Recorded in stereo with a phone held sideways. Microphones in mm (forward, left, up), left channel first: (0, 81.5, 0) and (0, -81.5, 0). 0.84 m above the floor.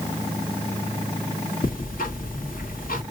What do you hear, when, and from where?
1.6 s ticking: 70° left (ahead or behind), 1.8 m